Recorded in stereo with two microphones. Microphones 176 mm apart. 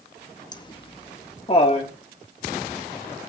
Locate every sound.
0.5 s laughter: 25° left (ahead or behind), 0.8 m; by 1.9 s 35° left (ahead or behind), 1.6 m